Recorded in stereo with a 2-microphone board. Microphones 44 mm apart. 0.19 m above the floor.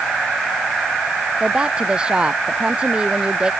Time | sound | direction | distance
1.4 | a woman speaking | 20° right (ahead or behind) | ?